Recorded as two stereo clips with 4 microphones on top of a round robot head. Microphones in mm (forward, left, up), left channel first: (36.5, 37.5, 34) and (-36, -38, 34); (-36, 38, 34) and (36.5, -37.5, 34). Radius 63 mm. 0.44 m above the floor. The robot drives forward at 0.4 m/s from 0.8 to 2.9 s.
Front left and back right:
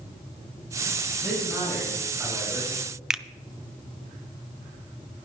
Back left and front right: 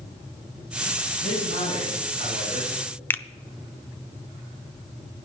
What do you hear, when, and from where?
1.2 s a man speaking: 140° left, 5 m; by 2.8 s 145° left, 5.5 m
3.1 s a finger snap: 150° left, 0.5 m